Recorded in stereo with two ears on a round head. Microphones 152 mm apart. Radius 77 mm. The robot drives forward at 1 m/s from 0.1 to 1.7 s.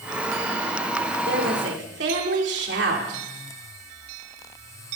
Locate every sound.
1.2 s a woman speaking: 65° right (ahead or behind), 4 m; by 3.2 s 70° right (ahead or behind), 3.5 m